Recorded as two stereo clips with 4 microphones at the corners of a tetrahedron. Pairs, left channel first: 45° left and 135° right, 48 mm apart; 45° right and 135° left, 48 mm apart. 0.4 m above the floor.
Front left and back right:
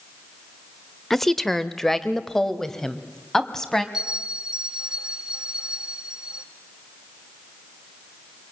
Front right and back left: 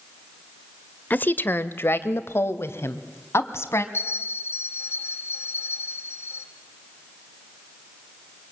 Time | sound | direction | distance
1.1 | a woman speaking | 35° right | 1.0 m
3.9 | a bell | 55° right | 2 m